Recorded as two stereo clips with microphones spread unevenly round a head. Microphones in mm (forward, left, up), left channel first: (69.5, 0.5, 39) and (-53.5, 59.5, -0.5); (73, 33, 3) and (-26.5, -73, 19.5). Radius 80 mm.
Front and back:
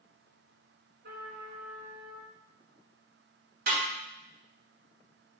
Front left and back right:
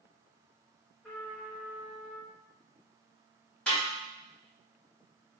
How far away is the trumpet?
About 3 m.